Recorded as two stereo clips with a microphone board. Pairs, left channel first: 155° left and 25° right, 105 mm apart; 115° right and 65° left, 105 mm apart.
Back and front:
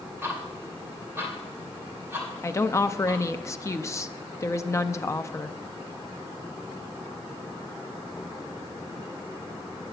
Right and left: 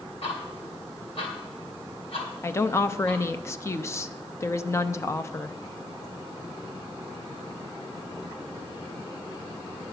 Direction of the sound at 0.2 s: 90° right.